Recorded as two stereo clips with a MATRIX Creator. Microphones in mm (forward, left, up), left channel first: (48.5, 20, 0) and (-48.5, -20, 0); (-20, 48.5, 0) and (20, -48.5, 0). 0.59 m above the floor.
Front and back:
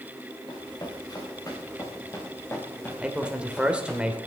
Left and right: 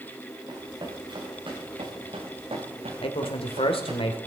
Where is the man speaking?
125° left, 2.5 m.